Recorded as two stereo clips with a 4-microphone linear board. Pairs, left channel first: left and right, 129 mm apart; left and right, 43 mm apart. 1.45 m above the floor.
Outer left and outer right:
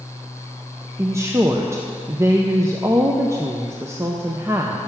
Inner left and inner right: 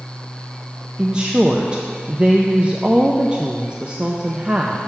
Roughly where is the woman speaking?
Right.